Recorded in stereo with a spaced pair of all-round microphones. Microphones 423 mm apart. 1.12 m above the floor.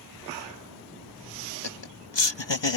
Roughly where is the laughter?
Left.